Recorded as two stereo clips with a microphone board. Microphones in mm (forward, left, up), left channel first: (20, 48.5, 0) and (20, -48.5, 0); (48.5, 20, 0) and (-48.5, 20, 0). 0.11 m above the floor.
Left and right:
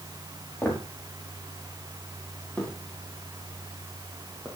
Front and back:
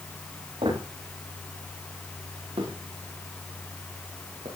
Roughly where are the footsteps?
Behind.